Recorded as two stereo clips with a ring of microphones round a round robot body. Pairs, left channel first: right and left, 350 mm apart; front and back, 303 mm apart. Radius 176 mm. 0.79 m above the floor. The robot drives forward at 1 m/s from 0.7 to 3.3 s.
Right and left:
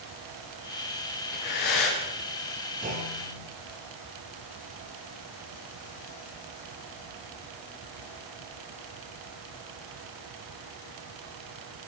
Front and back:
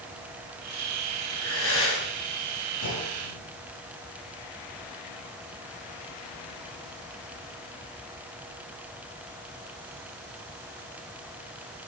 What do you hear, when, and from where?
1.3 s breathing: 55° right, 7.5 m; by 2.0 s 60° right, 7 m
2.8 s a clunk: 20° left, 9 m